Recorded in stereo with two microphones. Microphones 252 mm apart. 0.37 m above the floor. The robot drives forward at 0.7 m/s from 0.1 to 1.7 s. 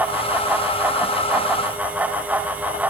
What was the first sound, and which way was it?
Only background noise.